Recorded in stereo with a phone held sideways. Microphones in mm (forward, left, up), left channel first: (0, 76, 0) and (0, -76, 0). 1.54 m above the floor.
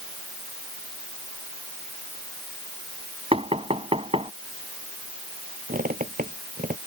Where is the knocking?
40° right (ahead or behind).